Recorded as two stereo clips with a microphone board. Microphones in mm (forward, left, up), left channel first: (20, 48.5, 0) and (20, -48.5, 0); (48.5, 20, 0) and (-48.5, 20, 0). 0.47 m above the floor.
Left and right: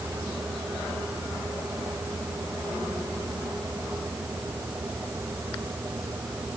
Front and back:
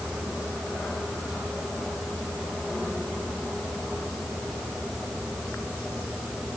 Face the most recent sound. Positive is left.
No sound to turn to.